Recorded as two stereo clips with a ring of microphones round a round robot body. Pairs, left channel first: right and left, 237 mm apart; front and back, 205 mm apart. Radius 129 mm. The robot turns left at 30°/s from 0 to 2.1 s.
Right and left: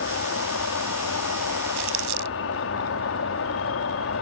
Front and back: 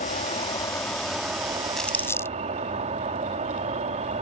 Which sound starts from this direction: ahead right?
An insect, at 0.0 s.